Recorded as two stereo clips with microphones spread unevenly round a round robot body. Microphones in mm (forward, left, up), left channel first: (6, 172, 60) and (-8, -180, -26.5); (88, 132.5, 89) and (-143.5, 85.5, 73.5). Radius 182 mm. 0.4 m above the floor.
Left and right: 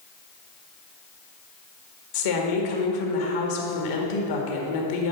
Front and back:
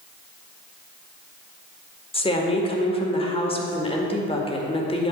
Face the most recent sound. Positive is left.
turn(degrees=75)